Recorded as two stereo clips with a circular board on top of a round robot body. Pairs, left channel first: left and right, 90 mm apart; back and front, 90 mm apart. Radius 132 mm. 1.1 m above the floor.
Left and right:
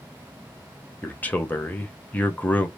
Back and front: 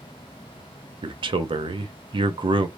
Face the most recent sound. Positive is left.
turn(degrees=20)